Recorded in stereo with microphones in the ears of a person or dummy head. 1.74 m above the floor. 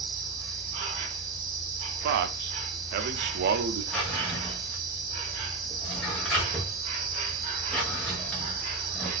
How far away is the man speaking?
About 0.7 m.